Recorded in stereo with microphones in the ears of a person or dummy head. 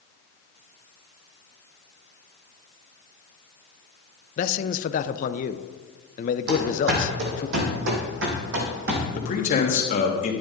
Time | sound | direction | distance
4.4 | a man speaking | 45° left (ahead or behind) | 0.6 m
6.5 | running footsteps | 60° right (ahead or behind) | 3 m
9.2 | a man speaking | 45° left (ahead or behind) | 1.8 m